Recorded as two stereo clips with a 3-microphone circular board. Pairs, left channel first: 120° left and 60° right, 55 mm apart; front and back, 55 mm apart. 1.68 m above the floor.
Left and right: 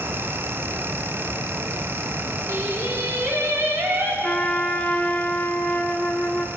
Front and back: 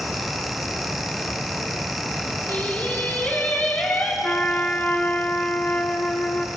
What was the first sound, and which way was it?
Singing, 45° right.